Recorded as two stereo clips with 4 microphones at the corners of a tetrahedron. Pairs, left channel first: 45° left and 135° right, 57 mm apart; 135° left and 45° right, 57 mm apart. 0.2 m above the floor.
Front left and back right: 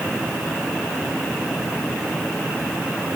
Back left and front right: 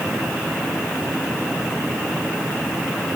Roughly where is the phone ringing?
No phone ringing in this recording.